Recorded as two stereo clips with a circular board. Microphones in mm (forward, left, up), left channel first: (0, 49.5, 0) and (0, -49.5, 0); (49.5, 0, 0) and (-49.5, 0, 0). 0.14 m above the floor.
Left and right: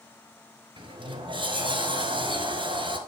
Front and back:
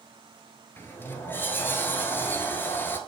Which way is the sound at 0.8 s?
65° right.